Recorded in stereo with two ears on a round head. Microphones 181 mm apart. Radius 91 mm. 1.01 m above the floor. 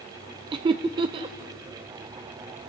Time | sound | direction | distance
0.5 | laughter | 25° right (ahead or behind) | 0.6 m